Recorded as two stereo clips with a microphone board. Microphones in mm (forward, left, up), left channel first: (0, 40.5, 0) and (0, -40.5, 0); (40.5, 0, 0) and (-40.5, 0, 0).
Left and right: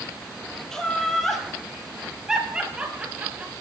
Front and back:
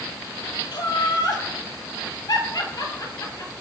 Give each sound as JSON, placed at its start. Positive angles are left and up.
{"t": 0.7, "sound": "laughter", "azimuth_deg": 10, "distance_m": 2.5}